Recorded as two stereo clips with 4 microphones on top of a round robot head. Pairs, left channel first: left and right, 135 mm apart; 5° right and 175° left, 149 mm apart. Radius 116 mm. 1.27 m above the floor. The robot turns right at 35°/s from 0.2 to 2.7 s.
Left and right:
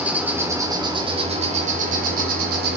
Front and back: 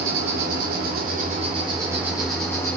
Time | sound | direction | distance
0.0 | an insect | 170° right | 2 m